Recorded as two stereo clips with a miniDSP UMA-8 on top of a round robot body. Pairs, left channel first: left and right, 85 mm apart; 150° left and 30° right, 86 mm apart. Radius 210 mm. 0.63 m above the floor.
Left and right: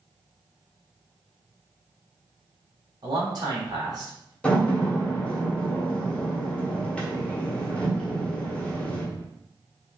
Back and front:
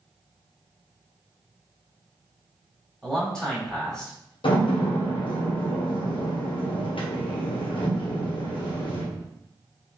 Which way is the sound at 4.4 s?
165° left.